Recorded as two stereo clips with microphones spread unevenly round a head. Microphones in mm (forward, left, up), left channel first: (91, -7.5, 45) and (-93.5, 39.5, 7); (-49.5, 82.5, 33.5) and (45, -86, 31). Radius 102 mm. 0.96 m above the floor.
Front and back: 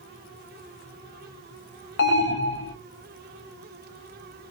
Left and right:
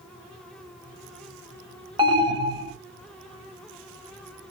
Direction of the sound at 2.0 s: 5° right.